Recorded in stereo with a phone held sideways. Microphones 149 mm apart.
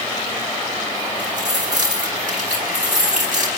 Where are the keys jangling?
60° right (ahead or behind), 4.5 m.